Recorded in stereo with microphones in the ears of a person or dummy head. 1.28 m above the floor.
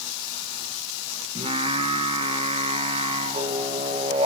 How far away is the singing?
About 0.9 m.